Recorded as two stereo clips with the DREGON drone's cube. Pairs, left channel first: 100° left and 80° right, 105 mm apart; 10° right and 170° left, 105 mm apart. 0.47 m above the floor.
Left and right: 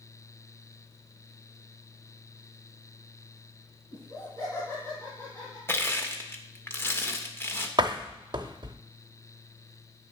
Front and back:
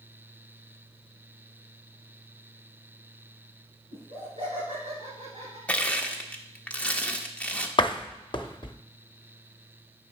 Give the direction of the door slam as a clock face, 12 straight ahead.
1 o'clock.